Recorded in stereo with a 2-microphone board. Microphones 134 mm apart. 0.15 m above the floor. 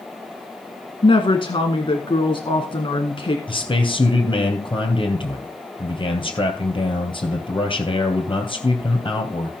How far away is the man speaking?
About 3 m.